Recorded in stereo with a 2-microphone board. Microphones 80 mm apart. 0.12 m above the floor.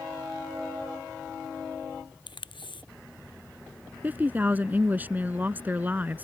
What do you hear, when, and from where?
2.3 s tape being pulled: 80° left
4.0 s a woman speaking: 25° right (ahead or behind)